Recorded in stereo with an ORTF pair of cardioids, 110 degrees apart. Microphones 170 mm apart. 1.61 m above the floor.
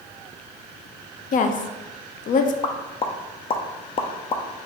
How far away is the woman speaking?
About 0.6 m.